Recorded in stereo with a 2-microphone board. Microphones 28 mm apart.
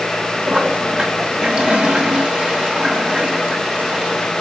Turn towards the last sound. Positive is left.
turn(degrees=-40)  # may be behind; listen again after turning